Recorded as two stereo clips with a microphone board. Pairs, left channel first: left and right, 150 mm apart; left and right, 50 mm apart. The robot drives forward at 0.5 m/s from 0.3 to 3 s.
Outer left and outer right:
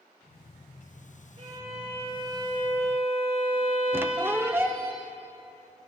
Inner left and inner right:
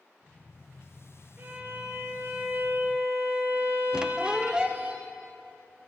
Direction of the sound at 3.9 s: 15° right (ahead or behind).